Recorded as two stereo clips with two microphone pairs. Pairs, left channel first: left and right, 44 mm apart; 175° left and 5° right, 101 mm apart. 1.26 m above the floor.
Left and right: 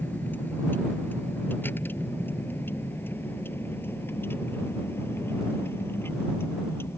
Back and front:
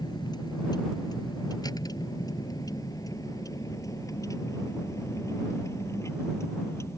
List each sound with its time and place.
0.0 s a vehicle: 130° left; by 7.0 s 110° left